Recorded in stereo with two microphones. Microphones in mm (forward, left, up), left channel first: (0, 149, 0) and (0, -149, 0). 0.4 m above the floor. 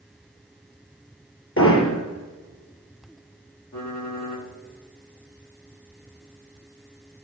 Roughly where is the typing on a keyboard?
Left.